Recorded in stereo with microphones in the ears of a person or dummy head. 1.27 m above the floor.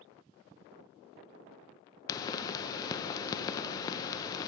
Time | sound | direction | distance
2.1 | a pop | 20° left (ahead or behind) | 0.5 m